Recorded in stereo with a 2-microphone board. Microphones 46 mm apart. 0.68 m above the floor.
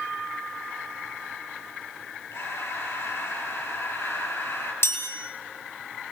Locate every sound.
2.3 s breathing: 70° left (ahead or behind), 7.5 m
4.8 s a chime: 65° left (ahead or behind), 6 m